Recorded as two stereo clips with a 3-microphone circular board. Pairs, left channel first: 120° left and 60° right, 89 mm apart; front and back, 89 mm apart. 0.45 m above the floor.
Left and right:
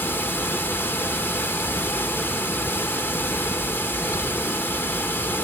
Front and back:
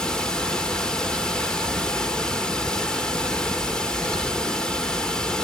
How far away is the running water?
About 1.2 m.